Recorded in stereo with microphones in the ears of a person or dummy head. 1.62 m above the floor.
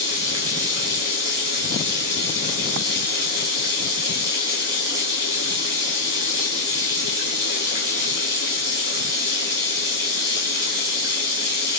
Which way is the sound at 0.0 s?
15° right (ahead or behind).